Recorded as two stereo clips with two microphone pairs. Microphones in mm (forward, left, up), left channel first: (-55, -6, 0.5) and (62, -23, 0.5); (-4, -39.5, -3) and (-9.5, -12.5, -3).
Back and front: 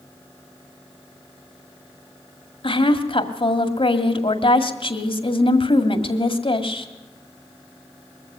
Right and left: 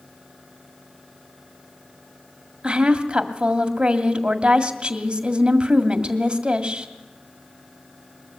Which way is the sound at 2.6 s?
150° left.